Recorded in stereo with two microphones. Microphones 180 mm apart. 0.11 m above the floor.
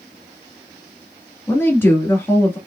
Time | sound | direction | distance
1.5 | a woman speaking | 10° left (ahead or behind) | 1.1 m